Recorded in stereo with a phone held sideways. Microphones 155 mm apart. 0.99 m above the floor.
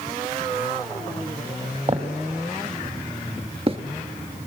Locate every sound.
1.9 s footsteps: 45° right (ahead or behind), 2 m; by 3.8 s 40° right (ahead or behind), 1.1 m